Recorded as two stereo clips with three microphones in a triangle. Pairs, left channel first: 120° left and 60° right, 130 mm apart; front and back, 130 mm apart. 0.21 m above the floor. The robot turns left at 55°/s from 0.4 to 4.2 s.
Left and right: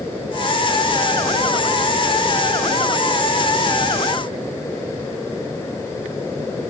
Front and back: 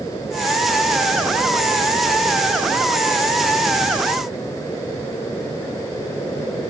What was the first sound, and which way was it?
Only background noise.